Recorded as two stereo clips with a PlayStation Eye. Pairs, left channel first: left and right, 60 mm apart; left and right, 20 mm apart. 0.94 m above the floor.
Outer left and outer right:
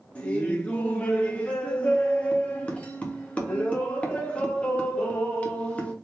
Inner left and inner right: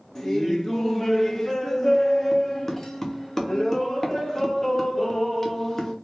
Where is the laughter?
20° left (ahead or behind), 0.8 m.